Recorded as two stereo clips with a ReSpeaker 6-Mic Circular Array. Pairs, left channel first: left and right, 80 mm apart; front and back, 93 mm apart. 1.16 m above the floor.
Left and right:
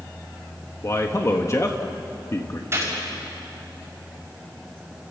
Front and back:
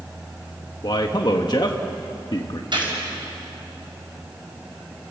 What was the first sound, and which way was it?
A man speaking, 35° left.